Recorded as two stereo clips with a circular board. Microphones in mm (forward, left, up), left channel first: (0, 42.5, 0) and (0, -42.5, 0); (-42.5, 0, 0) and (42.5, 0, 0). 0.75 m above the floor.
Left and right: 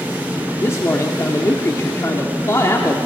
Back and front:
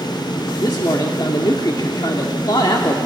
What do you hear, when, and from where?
0.6 s a man speaking: 145° left, 1.4 m